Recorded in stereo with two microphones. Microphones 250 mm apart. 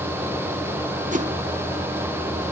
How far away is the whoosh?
About 1.4 m.